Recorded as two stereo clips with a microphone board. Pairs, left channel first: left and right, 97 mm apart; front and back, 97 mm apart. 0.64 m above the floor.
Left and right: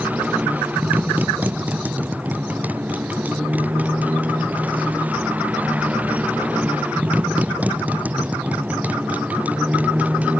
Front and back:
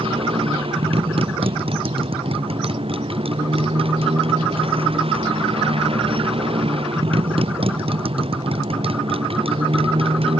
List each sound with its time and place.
0.0 s a motorcycle: 165° right